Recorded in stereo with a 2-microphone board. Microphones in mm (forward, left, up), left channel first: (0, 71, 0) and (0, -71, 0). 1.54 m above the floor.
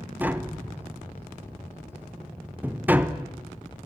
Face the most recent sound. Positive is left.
turn(degrees=-10)  # may be behind; listen again after turning